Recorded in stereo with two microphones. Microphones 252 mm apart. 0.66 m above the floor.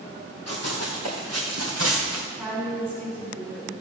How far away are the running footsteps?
About 3 m.